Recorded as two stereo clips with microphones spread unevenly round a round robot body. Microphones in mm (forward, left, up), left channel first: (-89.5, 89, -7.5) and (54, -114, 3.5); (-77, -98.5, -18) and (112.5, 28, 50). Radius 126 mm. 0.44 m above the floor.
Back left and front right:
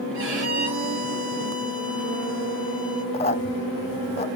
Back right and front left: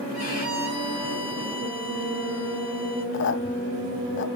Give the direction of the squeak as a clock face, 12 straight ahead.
6 o'clock.